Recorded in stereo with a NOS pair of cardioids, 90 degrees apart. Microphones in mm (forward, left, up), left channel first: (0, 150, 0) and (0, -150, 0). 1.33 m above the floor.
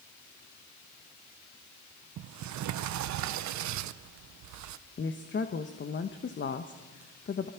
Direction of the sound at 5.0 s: 40° left.